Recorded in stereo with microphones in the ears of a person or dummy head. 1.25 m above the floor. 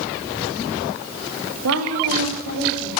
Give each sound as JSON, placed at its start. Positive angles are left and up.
{"t": 1.6, "sound": "a woman speaking", "side_deg": -85, "distance_m": 3.0}